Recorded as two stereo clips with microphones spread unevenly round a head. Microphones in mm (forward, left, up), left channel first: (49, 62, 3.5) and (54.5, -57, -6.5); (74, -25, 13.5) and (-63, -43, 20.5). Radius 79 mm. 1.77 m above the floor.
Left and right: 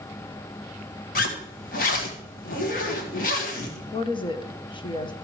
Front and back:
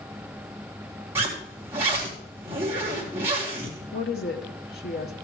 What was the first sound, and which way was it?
A zipper, 110° left.